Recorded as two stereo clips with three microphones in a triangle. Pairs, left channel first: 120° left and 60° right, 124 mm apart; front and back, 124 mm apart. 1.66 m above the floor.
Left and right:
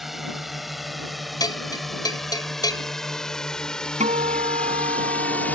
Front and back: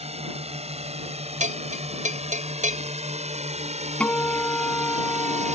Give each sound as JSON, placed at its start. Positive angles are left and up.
{"t": 0.0, "sound": "a drone", "azimuth_deg": -150}
{"t": 1.4, "sound": "a bell", "azimuth_deg": 180}
{"t": 4.0, "sound": "a guitar", "azimuth_deg": -80}